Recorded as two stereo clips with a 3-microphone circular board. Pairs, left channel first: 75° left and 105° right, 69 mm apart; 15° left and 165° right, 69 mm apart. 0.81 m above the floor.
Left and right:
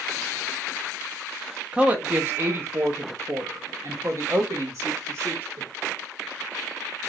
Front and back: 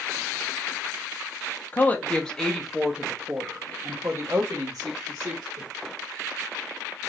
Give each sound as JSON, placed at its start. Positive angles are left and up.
{"t": 1.7, "sound": "a woman speaking", "azimuth_deg": -40, "distance_m": 1.1}